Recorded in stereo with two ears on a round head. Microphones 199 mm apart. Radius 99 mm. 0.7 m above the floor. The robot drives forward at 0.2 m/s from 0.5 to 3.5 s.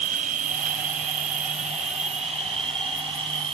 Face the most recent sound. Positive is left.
turn(degrees=-25)  # may be behind; listen again after turning